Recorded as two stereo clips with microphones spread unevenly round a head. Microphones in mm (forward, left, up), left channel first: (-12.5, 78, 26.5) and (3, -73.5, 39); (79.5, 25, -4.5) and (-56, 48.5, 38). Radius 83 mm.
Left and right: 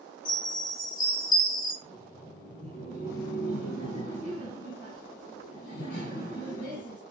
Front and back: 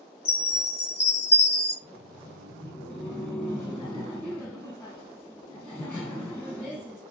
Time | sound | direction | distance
0.2 | a chime | 35° left | 1.1 m
1.8 | laughter | 65° left | 1.0 m